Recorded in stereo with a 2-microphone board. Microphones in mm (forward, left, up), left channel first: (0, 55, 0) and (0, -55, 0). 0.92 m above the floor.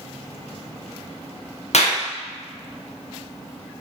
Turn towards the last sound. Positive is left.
turn(degrees=70)  # may be behind; listen again after turning